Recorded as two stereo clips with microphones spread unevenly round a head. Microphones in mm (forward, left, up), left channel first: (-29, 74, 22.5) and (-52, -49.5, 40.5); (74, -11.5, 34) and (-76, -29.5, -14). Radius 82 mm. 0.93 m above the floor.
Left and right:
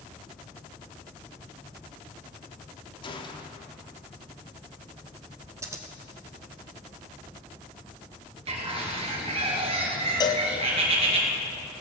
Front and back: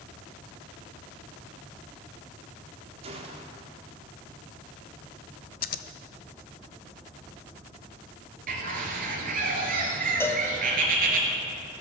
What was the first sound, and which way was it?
A gunshot, 130° left.